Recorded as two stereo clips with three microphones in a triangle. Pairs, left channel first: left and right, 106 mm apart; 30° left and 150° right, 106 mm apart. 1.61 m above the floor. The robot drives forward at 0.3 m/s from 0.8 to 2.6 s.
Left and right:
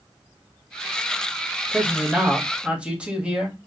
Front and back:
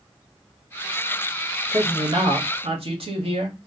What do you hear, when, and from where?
1.7 s a man speaking: 165° right, 1.0 m; by 3.6 s 170° right, 1.2 m